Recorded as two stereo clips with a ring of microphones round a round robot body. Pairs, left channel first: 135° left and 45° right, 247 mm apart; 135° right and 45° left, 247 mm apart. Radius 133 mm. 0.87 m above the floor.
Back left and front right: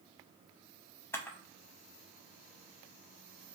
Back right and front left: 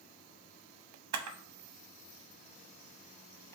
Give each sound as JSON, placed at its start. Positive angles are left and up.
{"t": 1.1, "sound": "a camera shutter", "azimuth_deg": 55, "distance_m": 0.7}